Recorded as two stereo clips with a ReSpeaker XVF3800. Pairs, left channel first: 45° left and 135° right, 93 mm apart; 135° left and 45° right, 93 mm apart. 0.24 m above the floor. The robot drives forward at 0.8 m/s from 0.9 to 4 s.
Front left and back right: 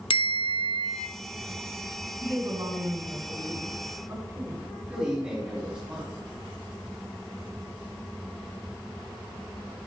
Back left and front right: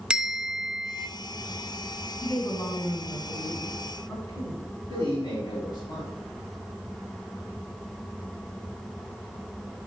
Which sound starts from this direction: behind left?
A man speaking, at 4.9 s.